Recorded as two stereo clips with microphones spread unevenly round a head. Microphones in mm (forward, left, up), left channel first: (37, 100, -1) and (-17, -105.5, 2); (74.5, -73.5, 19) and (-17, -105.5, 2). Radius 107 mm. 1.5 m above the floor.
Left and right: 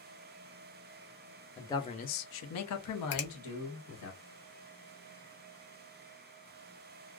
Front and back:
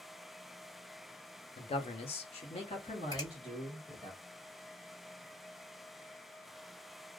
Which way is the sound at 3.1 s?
50° left.